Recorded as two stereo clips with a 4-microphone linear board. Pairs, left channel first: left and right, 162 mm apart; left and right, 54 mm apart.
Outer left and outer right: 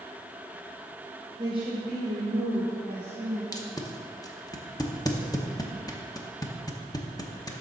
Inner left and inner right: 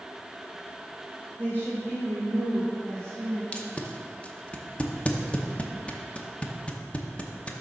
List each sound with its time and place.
1.4 s a woman speaking: 25° right (ahead or behind), 0.9 m; by 3.4 s 55° right (ahead or behind), 3 m
3.5 s tape being pulled: 25° left (ahead or behind), 0.8 m